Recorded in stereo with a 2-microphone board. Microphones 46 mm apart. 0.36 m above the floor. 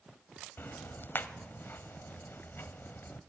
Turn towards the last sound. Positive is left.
turn(degrees=50)  # may be behind; listen again after turning